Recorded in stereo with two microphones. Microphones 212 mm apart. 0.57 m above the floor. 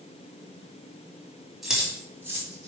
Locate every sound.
1.6 s keys jangling: centre (ahead or behind), 3 m; by 2.7 s 15° right (ahead or behind), 3 m